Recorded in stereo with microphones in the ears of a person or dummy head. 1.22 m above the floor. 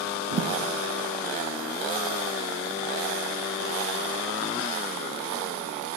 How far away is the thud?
About 1.4 m.